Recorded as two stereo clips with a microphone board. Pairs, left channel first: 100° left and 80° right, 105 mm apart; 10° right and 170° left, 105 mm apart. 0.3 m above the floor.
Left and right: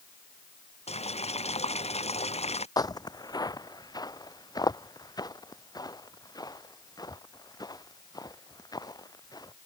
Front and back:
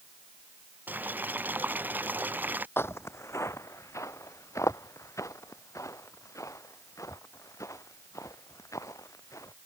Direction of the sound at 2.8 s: 50° left.